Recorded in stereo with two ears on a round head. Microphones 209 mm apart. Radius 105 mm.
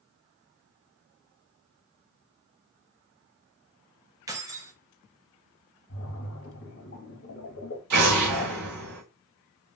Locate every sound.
4.3 s keys jangling: 15° right (ahead or behind), 0.6 m
5.9 s a splash: 55° left (ahead or behind), 1.6 m
7.9 s an explosion: 85° right, 2 m